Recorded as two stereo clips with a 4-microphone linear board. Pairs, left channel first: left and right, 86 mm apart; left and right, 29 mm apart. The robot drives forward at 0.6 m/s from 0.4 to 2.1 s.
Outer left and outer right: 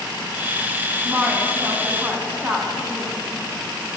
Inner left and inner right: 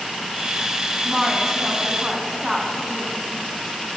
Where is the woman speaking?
25° right (ahead or behind), 1.3 m; by 3.2 s 20° right (ahead or behind), 1.3 m.